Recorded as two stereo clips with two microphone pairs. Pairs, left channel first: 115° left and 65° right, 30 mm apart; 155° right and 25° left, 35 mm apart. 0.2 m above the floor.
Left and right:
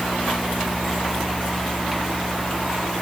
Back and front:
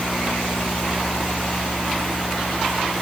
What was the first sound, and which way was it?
Only background noise.